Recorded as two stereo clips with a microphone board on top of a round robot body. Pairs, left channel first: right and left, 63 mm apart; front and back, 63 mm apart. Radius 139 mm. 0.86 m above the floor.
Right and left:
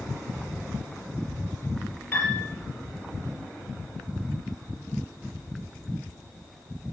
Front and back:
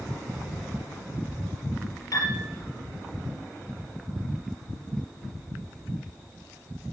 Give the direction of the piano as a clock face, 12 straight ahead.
1 o'clock.